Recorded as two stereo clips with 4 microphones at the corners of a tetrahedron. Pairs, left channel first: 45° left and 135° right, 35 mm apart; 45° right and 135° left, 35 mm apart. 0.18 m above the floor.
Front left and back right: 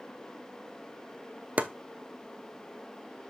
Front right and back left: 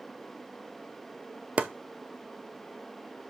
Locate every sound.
1.6 s chopping: 175° right, 0.7 m